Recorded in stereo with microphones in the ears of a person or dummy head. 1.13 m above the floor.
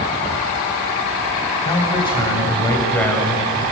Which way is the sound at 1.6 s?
30° left (ahead or behind).